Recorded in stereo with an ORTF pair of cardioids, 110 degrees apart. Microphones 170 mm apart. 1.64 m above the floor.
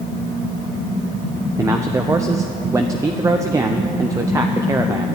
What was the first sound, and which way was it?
A man speaking, 20° right.